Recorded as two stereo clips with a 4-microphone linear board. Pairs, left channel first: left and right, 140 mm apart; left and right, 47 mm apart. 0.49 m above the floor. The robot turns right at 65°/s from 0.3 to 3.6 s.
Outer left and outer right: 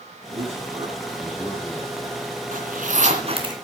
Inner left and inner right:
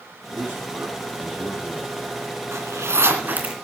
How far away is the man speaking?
About 5 m.